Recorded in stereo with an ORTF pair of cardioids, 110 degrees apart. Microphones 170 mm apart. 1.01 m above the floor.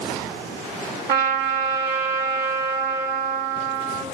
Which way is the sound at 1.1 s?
65° right.